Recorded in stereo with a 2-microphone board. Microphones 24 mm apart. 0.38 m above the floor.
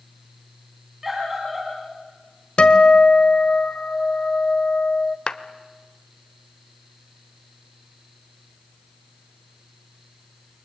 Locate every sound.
1.0 s a scream: 15° right (ahead or behind), 4 m
2.6 s a guitar: 45° left (ahead or behind), 1.6 m
5.3 s a clap: 40° left (ahead or behind), 1.0 m